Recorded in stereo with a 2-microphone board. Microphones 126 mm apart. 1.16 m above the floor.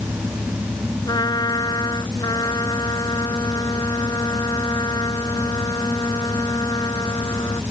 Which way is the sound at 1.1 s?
30° left (ahead or behind).